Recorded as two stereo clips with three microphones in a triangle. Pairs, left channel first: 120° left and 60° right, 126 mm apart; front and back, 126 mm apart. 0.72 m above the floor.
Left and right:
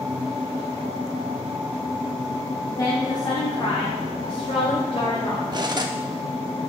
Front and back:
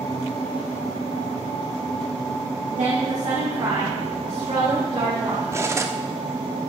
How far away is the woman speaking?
About 1.1 m.